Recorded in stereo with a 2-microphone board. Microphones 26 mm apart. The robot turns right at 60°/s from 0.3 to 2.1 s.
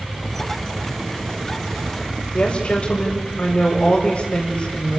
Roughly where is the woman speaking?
Left.